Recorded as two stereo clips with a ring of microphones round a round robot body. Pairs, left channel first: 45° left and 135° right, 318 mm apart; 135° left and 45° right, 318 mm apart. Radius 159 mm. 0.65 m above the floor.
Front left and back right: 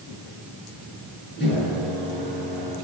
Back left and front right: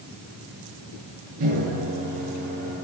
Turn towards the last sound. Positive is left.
turn(degrees=-15)